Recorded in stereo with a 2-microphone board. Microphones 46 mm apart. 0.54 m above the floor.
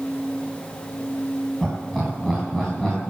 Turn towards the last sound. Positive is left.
turn(degrees=15)  # may be behind; listen again after turning